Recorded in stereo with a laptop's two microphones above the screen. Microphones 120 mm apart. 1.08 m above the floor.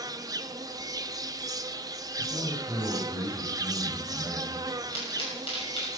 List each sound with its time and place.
0.0 s an insect: 30° right (ahead or behind), 0.8 m
2.2 s a man speaking: 25° right (ahead or behind), 7 m
4.9 s a pop: 50° left (ahead or behind), 6.5 m